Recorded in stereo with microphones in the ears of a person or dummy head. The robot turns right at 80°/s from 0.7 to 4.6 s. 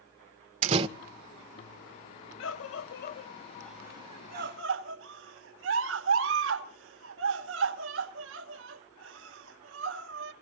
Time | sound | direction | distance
0.6 | a door slam | 40° right (ahead or behind) | 0.8 m
2.4 | a scream | 70° left (ahead or behind) | 1.4 m